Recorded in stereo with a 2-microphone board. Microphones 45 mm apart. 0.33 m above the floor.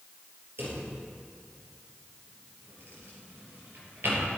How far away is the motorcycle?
I don't hear a motorcycle.